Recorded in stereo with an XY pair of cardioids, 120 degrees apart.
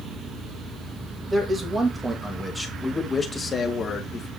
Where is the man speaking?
20° right, 2.5 m; by 4.3 s 50° left, 2 m.